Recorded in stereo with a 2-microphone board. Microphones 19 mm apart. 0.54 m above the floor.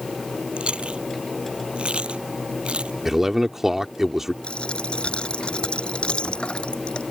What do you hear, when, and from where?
0.6 s chewing: 70° right (ahead or behind)
3.0 s a man speaking: 20° right (ahead or behind)
4.4 s a dropped coin: 65° left (ahead or behind)